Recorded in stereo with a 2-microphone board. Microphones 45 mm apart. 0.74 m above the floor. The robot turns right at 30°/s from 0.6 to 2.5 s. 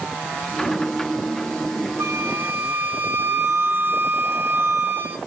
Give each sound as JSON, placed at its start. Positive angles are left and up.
{"t": 2.0, "sound": "a flute", "side_deg": -70, "distance_m": 1.3}